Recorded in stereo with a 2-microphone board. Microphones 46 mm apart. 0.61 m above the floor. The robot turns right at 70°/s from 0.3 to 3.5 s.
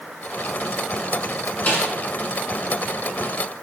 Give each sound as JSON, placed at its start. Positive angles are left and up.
{"t": 1.7, "sound": "a snare drum", "side_deg": 30, "distance_m": 1.4}